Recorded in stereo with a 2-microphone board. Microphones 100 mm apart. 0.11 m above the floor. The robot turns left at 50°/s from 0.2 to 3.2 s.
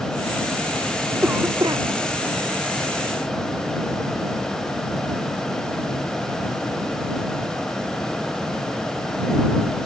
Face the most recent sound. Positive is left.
turn(degrees=-115)